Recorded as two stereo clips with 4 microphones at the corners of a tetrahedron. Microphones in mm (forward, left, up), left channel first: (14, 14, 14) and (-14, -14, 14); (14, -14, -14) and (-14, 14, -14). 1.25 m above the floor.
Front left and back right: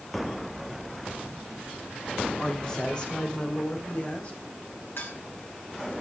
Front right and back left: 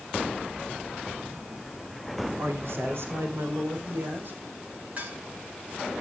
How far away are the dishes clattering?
About 8 m.